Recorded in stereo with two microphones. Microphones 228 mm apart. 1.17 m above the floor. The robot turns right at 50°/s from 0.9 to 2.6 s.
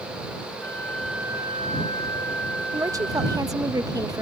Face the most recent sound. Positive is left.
turn(degrees=-15)  # may be behind; listen again after turning